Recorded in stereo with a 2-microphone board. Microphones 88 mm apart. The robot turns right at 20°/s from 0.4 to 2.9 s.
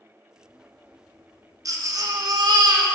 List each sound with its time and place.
1.6 s a baby crying: 40° right (ahead or behind), 0.8 m; by 2.9 s 50° right (ahead or behind), 0.8 m